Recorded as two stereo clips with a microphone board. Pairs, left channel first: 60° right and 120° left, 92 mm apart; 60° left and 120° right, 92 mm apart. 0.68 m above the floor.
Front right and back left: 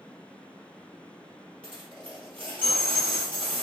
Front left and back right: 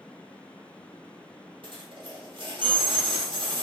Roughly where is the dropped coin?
Behind right.